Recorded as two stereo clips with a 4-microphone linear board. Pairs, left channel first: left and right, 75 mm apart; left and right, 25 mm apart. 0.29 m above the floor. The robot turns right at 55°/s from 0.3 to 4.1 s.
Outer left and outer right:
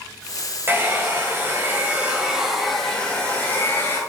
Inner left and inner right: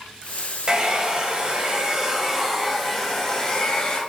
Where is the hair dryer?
110° right, 1.7 m; by 4.0 s 75° left, 1.7 m.